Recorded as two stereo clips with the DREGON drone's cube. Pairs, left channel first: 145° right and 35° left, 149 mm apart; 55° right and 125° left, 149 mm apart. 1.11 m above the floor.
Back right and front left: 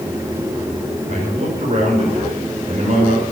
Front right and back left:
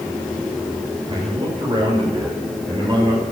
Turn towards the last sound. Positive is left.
turn(degrees=70)